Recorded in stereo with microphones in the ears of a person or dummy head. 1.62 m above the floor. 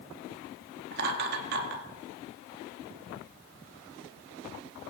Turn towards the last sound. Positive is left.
turn(degrees=-55)  # may be behind; listen again after turning